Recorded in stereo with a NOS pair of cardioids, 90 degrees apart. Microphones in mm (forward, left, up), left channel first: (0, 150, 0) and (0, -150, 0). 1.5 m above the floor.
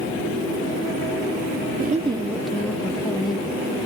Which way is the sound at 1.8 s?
30° right.